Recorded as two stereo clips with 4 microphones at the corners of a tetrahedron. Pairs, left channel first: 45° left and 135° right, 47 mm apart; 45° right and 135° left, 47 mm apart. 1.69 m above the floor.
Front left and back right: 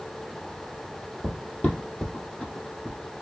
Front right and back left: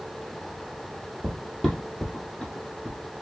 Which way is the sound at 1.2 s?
55° left.